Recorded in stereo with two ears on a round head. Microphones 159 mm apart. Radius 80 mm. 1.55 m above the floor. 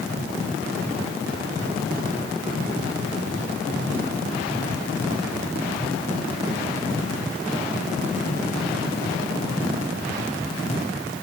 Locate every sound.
Only background noise.